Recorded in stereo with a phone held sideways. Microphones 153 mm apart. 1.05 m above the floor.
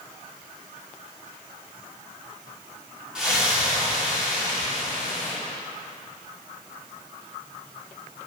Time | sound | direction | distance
3.1 | a splash | 5° right (ahead or behind) | 2.5 m